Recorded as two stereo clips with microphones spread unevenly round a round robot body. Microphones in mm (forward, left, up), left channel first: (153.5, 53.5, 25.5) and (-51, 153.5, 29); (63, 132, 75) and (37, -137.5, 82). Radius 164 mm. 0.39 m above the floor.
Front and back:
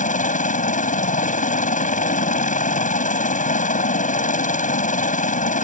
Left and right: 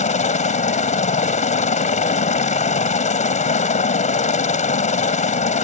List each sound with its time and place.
0.0 s a helicopter: 25° left